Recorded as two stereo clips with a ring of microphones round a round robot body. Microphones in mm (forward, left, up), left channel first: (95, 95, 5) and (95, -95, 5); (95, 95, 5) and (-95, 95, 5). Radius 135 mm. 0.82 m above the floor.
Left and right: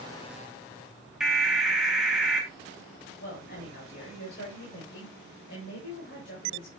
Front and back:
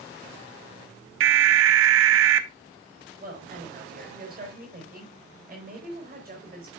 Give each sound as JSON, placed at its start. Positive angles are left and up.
{"t": 1.2, "sound": "an alarm", "azimuth_deg": 180, "distance_m": 0.7}
{"t": 3.2, "sound": "a woman speaking", "azimuth_deg": 140, "distance_m": 4.0}